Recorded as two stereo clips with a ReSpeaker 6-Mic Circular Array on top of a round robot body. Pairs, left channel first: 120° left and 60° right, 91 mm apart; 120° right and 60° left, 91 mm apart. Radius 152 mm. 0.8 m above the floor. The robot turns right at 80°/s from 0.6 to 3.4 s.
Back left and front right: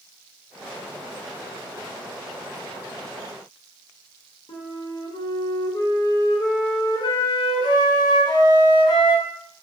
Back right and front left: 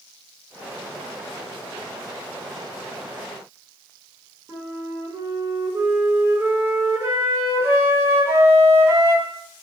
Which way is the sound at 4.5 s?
115° left.